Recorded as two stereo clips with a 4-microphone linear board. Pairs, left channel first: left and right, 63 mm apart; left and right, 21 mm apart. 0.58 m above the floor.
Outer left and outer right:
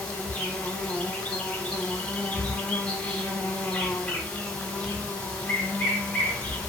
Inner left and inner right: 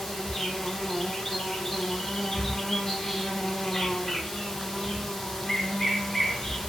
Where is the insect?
20° left (ahead or behind), 0.9 m.